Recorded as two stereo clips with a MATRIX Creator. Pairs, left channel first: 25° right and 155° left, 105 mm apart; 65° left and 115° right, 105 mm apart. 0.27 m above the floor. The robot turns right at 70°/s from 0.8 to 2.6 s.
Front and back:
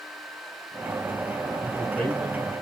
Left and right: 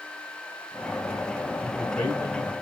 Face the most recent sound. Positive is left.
turn(degrees=65)